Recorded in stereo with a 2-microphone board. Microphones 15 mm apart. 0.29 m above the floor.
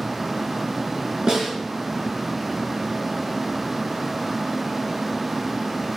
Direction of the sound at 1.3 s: 55° right (ahead or behind).